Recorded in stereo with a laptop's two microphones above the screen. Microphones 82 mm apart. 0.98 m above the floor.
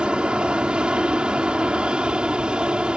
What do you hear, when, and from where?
0.0 s an aircraft: 10° right (ahead or behind)